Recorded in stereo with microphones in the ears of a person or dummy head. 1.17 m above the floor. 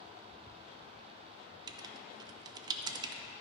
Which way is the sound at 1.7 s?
20° right (ahead or behind).